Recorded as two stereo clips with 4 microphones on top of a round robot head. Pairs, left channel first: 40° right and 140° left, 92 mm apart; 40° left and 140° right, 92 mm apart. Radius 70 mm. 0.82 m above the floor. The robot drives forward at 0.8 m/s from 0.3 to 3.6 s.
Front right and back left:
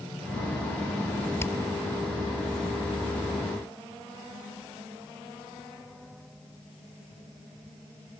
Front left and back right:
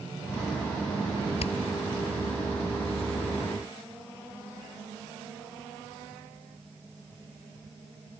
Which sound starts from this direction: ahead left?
Hammering, at 1.4 s.